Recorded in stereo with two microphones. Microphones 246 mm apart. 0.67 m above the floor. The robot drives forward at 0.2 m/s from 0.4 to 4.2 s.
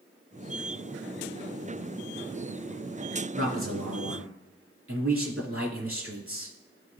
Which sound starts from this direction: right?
A man speaking, at 3.4 s.